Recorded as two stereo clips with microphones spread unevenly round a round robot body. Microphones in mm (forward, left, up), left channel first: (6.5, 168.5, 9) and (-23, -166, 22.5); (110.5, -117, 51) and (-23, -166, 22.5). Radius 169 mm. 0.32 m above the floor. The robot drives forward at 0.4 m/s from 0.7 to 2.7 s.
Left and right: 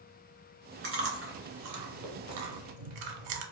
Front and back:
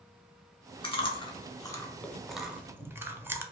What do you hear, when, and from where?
0.8 s chewing: 40° right, 1.1 m; by 3.4 s 80° right, 0.7 m